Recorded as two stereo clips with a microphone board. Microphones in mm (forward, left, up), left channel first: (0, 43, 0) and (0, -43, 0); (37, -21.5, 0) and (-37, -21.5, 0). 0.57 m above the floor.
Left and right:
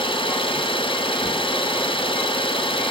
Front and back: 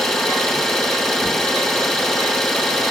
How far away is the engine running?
About 5 m.